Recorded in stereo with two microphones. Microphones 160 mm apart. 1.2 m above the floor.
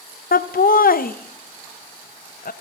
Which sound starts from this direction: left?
Laughter, at 0.3 s.